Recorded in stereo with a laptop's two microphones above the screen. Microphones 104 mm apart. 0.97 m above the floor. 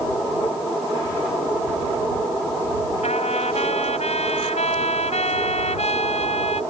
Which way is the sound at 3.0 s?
85° left.